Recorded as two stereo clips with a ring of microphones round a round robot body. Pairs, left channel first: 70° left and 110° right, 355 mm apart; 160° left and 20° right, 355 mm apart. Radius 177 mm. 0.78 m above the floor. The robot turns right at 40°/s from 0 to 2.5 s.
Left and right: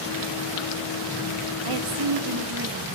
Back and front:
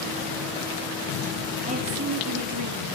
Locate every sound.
1.6 s a woman speaking: 95° right, 2.0 m; by 3.0 s 60° right, 2.0 m